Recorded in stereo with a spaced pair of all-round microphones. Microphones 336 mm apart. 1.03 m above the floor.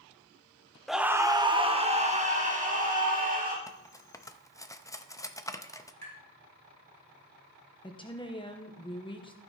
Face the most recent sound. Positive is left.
turn(degrees=15)  # may be behind; listen again after turning